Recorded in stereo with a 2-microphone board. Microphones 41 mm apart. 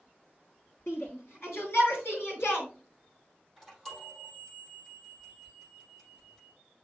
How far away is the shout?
About 6 m.